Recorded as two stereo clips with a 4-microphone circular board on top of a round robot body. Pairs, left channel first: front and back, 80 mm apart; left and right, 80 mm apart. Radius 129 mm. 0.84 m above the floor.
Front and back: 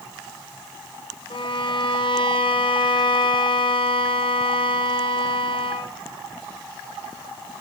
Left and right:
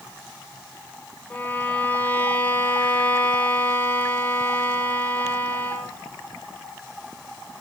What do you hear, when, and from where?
1.3 s a violin: 20° left, 1.2 m